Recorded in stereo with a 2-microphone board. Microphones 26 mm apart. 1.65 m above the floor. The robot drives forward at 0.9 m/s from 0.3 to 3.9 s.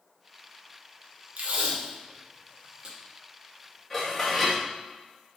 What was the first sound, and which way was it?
Tape being pulled, 65° right (ahead or behind).